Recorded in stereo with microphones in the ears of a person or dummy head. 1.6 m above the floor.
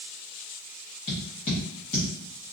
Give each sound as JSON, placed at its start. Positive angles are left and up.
{"t": 1.1, "sound": "tapping", "side_deg": 25, "distance_m": 1.1}